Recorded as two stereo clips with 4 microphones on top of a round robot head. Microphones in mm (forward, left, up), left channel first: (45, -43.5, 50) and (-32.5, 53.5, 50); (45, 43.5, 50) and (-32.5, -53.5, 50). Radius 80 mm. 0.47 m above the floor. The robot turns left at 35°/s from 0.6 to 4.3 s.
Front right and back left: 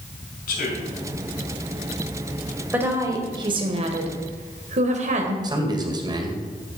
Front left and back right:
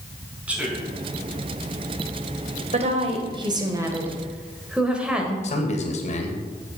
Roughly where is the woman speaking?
Behind right.